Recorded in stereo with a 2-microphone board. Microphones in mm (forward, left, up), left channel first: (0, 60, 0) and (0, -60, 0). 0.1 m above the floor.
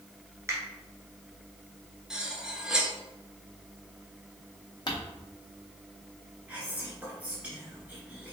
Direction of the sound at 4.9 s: 40° left (ahead or behind).